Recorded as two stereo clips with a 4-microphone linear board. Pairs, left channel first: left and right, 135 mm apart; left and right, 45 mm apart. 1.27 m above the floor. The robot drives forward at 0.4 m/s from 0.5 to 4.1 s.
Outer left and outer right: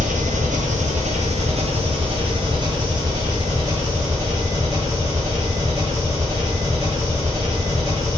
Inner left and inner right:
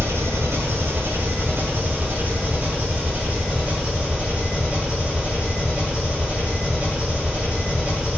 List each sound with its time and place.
0.0 s an engine running: 75° right (ahead or behind), 0.8 m; by 8.2 s 25° right (ahead or behind), 1.8 m